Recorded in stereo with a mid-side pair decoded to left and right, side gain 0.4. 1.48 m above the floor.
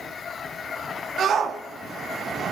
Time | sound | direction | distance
1.2 | a shout | 65° right | 3 m